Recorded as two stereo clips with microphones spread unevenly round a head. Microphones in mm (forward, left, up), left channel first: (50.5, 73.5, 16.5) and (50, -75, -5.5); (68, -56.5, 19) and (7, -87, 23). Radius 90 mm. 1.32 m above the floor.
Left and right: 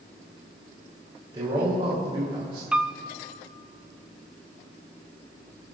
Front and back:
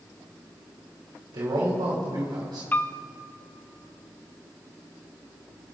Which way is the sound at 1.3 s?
155° right.